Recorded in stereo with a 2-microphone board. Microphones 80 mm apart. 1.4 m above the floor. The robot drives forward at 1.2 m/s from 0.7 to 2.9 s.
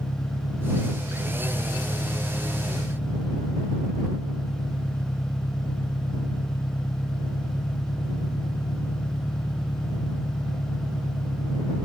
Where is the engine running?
55° left (ahead or behind); by 11.8 s 75° left (ahead or behind).